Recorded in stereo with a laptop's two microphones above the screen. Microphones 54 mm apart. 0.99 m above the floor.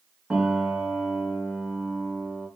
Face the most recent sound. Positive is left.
turn(degrees=-10)  # may be behind; listen again after turning